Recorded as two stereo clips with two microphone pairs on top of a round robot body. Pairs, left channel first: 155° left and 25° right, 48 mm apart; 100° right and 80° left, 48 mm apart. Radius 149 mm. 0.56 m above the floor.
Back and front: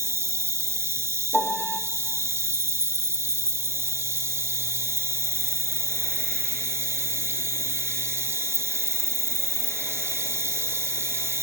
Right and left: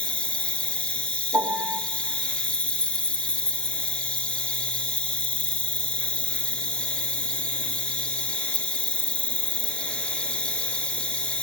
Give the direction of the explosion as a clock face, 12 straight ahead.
No explosion in this recording.